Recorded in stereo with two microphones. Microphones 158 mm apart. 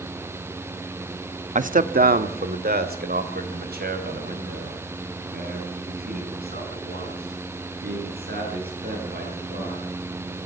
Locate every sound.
1.6 s a man speaking: 50° right (ahead or behind), 0.8 m; by 10.0 s 80° right, 11.5 m